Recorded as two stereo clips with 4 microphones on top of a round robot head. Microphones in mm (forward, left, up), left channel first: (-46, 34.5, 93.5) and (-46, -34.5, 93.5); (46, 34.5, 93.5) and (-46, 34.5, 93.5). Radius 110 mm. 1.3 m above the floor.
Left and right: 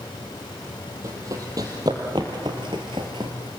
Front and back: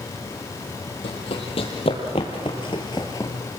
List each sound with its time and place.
1.0 s running footsteps: 35° right, 2.5 m; by 3.5 s 75° right, 1.4 m